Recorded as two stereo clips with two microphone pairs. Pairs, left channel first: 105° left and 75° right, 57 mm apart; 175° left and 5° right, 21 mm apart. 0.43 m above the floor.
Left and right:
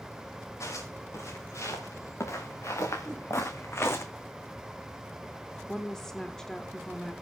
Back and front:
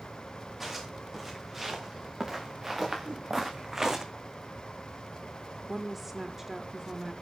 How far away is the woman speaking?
About 1.2 m.